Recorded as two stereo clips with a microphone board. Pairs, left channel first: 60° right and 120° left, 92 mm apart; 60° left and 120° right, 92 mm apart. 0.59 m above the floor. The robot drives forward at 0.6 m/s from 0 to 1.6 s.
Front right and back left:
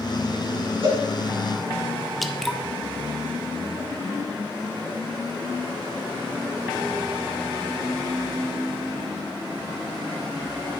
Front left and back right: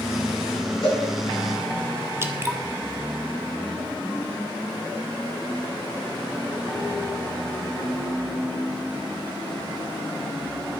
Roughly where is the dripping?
Behind right.